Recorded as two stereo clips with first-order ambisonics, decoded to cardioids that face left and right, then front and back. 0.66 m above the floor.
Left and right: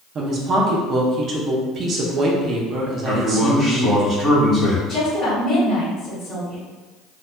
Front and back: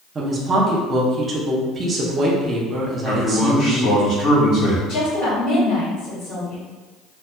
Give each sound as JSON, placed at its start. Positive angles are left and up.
{"t": 0.1, "sound": "a woman speaking", "azimuth_deg": -120, "distance_m": 0.6}
{"t": 3.0, "sound": "a man speaking", "azimuth_deg": 15, "distance_m": 1.5}
{"t": 4.9, "sound": "a woman speaking", "azimuth_deg": 30, "distance_m": 1.9}